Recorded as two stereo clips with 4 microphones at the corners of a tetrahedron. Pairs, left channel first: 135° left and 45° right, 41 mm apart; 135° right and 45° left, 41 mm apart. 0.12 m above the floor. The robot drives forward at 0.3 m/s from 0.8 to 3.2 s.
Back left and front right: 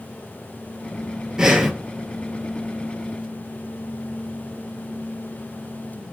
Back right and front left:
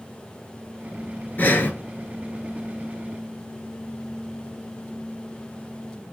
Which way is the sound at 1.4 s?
115° right.